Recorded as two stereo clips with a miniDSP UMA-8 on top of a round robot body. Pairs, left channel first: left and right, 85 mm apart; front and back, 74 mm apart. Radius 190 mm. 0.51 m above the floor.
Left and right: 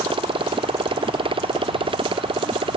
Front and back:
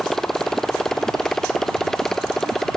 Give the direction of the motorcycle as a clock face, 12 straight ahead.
3 o'clock.